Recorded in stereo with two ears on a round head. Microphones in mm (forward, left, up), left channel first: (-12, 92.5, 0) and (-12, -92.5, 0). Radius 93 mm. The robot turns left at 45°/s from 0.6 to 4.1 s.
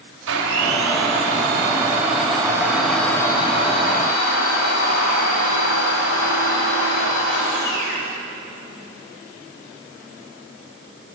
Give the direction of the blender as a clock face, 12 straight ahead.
3 o'clock.